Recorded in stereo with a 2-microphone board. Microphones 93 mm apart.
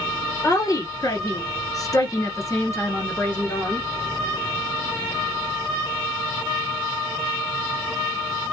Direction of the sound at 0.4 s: 40° left (ahead or behind).